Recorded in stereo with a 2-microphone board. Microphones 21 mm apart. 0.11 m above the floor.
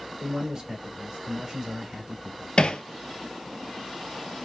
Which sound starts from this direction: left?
Hammering, at 2.6 s.